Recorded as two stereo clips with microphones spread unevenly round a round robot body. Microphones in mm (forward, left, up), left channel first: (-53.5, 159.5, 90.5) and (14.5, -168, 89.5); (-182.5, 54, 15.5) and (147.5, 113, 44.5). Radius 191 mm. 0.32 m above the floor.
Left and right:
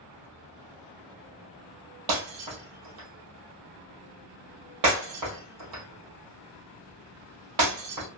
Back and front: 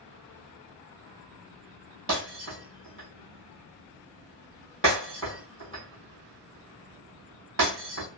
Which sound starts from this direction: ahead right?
Breaking glass, at 2.1 s.